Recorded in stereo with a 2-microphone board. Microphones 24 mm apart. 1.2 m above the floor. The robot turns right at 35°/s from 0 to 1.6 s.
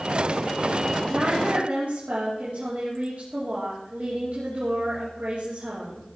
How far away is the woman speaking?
About 3 m.